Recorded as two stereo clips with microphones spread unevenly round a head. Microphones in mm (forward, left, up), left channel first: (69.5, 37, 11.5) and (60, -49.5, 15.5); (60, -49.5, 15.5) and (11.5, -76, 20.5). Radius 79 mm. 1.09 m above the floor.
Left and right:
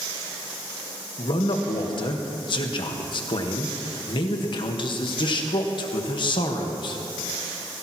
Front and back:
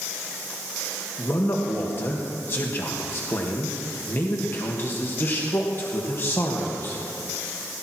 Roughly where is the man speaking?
Left.